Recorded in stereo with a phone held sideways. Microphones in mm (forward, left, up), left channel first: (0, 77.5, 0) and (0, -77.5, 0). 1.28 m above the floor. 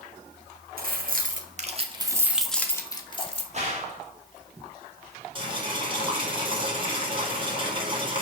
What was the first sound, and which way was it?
Keys jangling, 70° right (ahead or behind).